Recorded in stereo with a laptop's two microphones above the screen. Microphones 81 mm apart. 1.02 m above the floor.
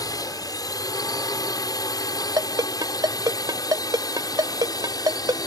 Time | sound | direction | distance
0.0 | a drone | 50° left (ahead or behind) | ?
2.4 | a ringtone | 60° right (ahead or behind) | ?